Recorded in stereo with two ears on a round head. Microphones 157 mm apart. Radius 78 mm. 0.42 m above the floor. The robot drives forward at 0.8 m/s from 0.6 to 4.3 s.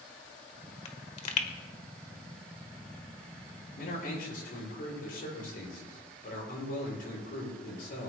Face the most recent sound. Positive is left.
turn(degrees=55)  # may be behind; listen again after turning